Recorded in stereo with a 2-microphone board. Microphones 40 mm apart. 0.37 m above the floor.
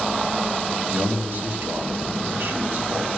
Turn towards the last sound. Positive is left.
turn(degrees=-65)  # may be behind; listen again after turning